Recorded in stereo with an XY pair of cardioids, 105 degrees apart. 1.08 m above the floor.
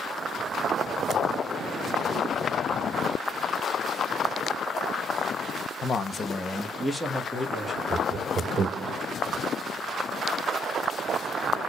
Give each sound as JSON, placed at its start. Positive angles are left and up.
{"t": 5.8, "sound": "a man speaking", "azimuth_deg": 50, "distance_m": 1.0}
{"t": 7.9, "sound": "laughter", "azimuth_deg": -55, "distance_m": 0.9}